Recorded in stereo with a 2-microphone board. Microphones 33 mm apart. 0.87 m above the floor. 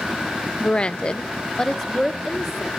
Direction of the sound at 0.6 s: 25° left (ahead or behind).